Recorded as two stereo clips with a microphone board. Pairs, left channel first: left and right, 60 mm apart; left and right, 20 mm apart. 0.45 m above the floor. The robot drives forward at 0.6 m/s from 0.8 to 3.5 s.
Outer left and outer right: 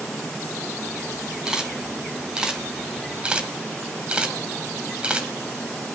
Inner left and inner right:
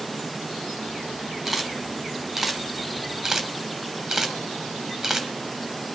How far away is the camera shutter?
About 3.5 m.